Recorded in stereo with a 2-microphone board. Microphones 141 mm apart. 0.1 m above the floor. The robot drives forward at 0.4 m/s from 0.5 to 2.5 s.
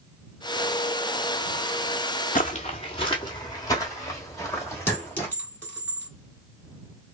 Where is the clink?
15° left (ahead or behind), 1.5 m.